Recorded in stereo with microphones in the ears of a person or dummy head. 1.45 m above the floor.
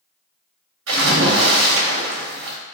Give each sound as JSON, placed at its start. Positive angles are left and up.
{"t": 0.9, "sound": "a splash", "side_deg": -80, "distance_m": 2.0}